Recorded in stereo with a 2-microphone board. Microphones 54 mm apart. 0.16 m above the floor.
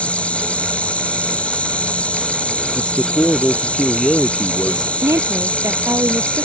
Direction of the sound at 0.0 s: 25° left (ahead or behind).